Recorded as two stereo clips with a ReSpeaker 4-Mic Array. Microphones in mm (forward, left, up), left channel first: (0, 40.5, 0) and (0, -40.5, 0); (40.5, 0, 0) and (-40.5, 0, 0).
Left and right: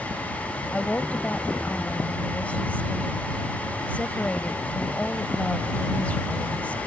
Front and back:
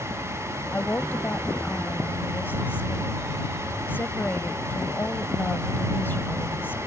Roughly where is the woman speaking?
Ahead left.